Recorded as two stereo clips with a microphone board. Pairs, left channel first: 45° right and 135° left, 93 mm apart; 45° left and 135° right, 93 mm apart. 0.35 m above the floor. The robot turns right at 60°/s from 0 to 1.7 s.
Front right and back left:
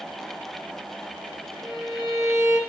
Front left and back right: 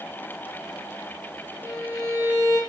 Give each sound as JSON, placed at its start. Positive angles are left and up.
{"t": 1.6, "sound": "a violin", "azimuth_deg": 90, "distance_m": 1.1}